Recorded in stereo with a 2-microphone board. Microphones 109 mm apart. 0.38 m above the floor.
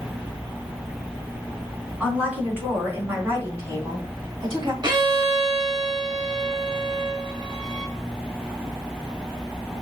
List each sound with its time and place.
2.0 s a woman speaking: 10° right (ahead or behind), 3 m; by 4.7 s 40° right (ahead or behind), 2.5 m
4.8 s a violin: 40° right (ahead or behind), 0.9 m